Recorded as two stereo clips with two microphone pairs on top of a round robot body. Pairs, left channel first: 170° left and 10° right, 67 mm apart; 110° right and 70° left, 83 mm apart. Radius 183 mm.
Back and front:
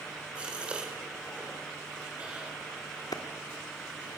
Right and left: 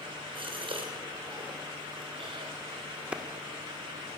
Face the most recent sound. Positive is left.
turn(degrees=150)